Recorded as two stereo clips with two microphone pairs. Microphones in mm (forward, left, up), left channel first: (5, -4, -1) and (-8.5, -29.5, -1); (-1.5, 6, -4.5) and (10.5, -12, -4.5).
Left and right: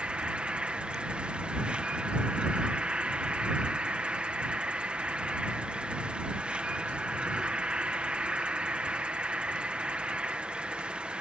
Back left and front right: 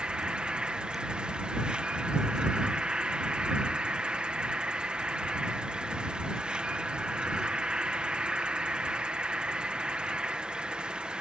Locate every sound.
0.0 s an insect: 70° right